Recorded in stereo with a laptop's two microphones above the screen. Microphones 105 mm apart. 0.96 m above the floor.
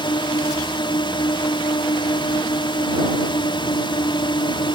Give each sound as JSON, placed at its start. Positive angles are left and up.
{"t": 0.0, "sound": "a drone", "side_deg": 50}